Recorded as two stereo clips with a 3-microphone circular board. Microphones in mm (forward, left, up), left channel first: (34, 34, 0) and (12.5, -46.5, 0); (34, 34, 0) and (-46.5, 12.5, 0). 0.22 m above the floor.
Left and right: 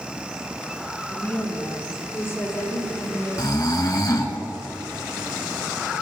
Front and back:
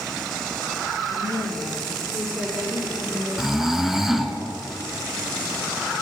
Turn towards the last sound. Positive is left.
turn(degrees=110)